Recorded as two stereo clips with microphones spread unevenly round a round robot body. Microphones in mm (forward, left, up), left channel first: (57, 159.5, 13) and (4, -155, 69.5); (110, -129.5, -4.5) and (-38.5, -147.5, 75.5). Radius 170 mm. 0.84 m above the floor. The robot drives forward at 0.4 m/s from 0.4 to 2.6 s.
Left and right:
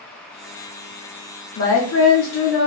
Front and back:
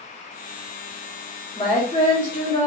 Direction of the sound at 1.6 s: 60° left.